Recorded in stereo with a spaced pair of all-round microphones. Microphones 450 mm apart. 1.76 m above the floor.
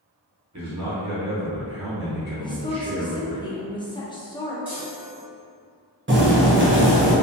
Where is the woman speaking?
10° left (ahead or behind), 0.5 m.